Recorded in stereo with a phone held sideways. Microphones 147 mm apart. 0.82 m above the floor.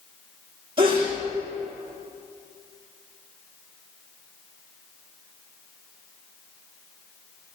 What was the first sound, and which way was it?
A sneeze, 40° right (ahead or behind).